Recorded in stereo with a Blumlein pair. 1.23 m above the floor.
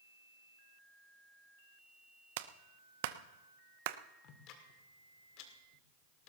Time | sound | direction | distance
2.4 | a clap | 50° right | 0.7 m
4.2 | ticking | 40° left | 2 m